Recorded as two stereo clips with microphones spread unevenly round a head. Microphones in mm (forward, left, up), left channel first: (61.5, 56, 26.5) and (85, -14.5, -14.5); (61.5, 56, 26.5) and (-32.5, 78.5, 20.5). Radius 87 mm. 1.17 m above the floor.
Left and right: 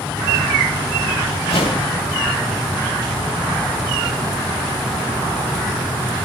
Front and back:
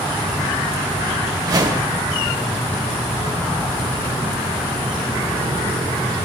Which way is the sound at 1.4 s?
125° left.